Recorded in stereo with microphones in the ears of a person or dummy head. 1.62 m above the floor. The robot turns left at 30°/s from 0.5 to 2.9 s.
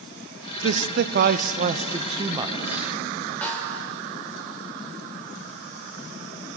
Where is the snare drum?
5° left (ahead or behind), 2.5 m.